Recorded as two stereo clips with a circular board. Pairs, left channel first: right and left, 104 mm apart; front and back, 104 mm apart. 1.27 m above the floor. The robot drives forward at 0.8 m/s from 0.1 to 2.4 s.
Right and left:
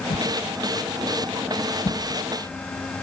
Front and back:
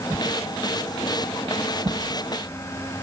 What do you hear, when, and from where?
0.1 s a whoosh: 105° right, 2.5 m; by 2.0 s 130° right, 3.5 m